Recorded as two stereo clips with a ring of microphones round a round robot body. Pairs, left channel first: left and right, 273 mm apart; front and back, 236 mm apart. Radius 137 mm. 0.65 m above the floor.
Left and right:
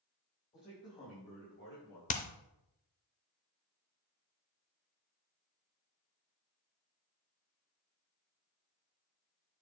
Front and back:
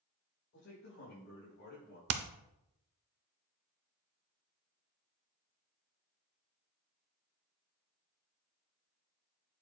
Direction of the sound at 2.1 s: 155° left.